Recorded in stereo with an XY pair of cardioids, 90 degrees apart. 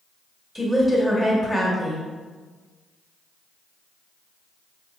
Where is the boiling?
I don't hear boiling.